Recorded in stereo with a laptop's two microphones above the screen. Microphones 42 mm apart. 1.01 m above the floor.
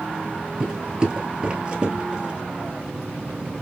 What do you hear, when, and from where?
0.6 s footsteps: 20° right (ahead or behind), 1.0 m; by 2.3 s 25° right (ahead or behind), 1.3 m